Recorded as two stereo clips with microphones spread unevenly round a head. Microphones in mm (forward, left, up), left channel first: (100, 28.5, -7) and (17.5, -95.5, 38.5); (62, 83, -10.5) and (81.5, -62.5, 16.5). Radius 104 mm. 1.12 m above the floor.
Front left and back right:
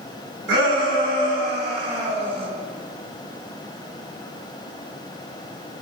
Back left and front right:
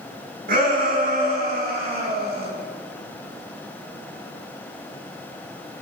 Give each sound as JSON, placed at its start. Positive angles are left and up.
{"t": 0.5, "sound": "a shout", "azimuth_deg": -140, "distance_m": 6.5}